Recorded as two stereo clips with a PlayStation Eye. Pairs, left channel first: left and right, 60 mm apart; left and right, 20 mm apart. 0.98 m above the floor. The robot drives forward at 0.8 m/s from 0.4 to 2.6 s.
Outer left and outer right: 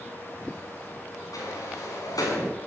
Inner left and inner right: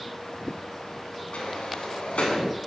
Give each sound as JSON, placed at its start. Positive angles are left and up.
{"t": 1.3, "sound": "a sliding door", "side_deg": 85, "distance_m": 8.0}